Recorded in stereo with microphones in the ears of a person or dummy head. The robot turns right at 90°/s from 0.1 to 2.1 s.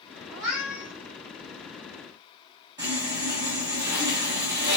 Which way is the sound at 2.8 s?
15° right (ahead or behind).